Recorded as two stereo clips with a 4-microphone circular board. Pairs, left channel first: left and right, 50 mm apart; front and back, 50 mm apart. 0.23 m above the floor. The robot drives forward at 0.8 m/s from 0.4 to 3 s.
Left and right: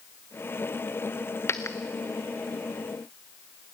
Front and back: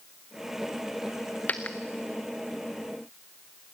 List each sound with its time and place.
1.5 s a dropped coin: 55° left, 1.3 m; by 1.8 s 65° left, 1.2 m